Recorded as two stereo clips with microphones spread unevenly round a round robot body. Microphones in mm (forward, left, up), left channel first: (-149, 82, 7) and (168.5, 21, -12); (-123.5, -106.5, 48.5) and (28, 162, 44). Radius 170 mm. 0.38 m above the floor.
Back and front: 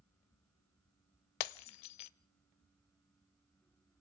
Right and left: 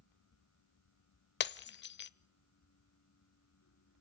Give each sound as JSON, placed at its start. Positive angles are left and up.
{"t": 1.4, "sound": "breaking glass", "azimuth_deg": 180, "distance_m": 0.6}